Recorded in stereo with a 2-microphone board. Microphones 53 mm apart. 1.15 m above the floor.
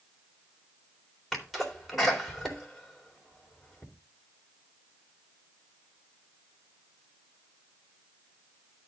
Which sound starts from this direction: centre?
A sneeze, at 1.3 s.